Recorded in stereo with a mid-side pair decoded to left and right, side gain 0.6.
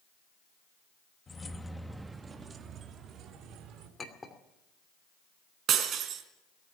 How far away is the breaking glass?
About 3.5 m.